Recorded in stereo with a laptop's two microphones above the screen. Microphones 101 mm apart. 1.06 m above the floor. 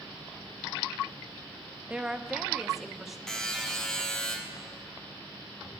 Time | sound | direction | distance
1.9 | a woman speaking | 10° right (ahead or behind) | 0.7 m
3.3 | a buzzer | 5° left (ahead or behind) | 1.4 m